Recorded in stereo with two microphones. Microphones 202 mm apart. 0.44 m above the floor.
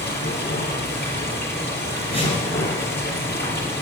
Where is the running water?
55° left (ahead or behind), 5 m.